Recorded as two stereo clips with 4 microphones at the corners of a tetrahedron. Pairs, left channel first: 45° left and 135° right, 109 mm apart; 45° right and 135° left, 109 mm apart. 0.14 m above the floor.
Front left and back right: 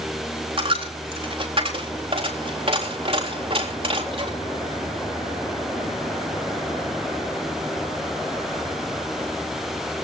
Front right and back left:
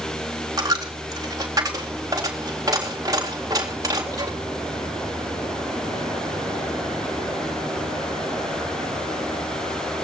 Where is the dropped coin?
165° right, 3.5 m.